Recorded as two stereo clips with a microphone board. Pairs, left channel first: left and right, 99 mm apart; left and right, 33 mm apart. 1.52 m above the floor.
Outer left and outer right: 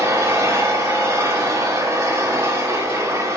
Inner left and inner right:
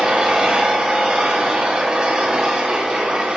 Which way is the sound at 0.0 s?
30° right (ahead or behind).